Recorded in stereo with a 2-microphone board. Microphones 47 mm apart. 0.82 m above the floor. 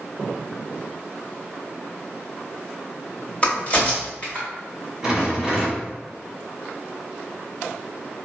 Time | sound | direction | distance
3.4 | a crack | 30° left (ahead or behind) | 1.4 m
5.0 | a rattle | 10° right (ahead or behind) | 1.9 m